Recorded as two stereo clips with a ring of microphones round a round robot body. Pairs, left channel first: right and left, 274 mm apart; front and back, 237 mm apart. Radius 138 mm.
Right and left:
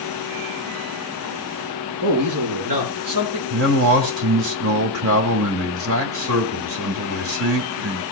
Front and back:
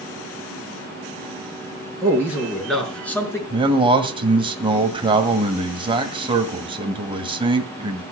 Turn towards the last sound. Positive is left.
turn(degrees=115)